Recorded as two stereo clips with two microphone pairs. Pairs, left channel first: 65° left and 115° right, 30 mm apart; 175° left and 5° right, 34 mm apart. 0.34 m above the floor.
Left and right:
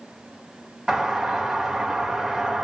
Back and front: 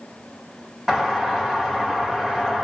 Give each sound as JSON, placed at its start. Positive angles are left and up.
{"t": 0.9, "sound": "a doorbell", "azimuth_deg": -65, "distance_m": 1.5}